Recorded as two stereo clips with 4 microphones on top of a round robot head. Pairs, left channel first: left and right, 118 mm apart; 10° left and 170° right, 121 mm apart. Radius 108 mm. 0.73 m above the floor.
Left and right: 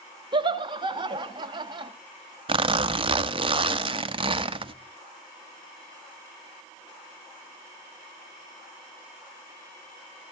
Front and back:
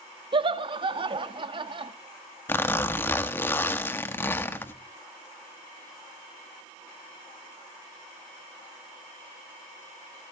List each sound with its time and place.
0.3 s laughter: 135° right, 1.6 m
2.5 s a zipper: 60° right, 1.2 m